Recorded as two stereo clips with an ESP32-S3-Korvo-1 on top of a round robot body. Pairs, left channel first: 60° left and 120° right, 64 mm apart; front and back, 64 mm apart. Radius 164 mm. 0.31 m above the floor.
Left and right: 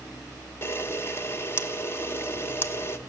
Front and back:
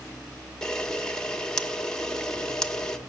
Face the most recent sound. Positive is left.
turn(degrees=75)